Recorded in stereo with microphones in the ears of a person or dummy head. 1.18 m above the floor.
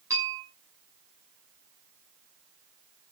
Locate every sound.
0.1 s a bell: 15° right (ahead or behind), 8.5 m